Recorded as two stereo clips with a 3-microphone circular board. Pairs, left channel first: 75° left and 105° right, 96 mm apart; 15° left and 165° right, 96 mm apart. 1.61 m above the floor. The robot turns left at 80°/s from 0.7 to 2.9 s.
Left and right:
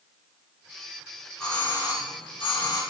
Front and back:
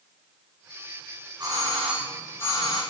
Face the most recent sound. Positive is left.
turn(degrees=40)